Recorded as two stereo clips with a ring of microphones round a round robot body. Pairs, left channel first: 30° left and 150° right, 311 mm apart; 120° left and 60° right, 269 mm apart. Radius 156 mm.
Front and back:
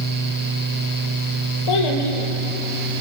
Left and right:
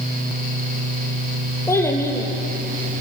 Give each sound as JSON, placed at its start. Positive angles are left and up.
{"t": 1.7, "sound": "a child speaking", "azimuth_deg": 40, "distance_m": 5.5}